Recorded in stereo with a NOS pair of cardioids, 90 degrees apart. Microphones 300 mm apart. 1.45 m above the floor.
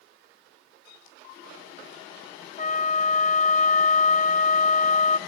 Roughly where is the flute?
Ahead left.